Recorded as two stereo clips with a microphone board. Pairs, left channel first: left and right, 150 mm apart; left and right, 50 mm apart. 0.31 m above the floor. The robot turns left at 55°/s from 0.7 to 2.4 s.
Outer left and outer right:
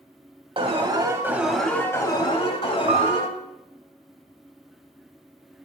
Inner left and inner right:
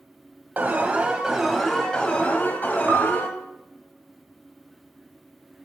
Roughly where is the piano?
Right.